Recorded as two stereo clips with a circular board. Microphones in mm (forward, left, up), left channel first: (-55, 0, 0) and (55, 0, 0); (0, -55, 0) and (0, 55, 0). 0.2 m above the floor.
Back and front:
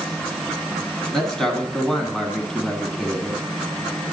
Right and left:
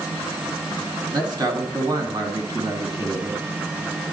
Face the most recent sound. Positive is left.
turn(degrees=95)